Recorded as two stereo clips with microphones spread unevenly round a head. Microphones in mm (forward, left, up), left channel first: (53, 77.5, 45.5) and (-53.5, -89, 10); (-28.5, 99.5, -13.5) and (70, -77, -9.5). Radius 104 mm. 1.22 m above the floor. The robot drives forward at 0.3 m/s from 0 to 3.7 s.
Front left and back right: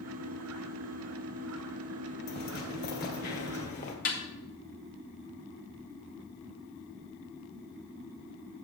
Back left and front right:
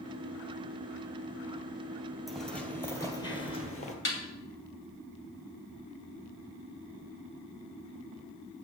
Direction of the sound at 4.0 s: 95° left.